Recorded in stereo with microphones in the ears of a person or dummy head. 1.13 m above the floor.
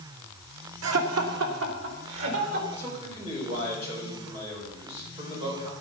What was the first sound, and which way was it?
Laughter, 80° right.